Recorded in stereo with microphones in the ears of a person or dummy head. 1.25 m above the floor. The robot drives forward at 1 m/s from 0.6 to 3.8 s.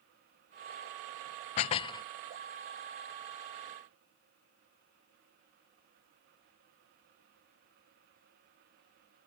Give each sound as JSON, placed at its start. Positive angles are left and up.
{"t": 1.6, "sound": "dishes clattering", "side_deg": 30}